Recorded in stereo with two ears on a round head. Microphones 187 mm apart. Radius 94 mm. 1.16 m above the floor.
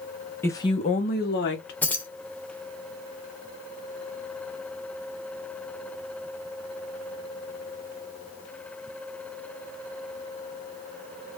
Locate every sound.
0.4 s a woman speaking: 10° left (ahead or behind), 0.5 m; by 1.7 s 55° left (ahead or behind), 0.9 m
1.8 s keys jangling: 10° left (ahead or behind), 0.6 m